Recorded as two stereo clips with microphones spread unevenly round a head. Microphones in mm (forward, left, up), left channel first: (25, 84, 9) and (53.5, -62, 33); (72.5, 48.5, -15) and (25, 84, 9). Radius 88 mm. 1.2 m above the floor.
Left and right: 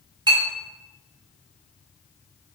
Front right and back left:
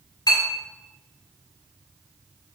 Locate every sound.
0.3 s a clink: 20° right, 1.4 m